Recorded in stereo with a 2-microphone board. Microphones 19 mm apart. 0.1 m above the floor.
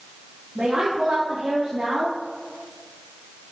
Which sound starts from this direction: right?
A woman speaking, at 0.6 s.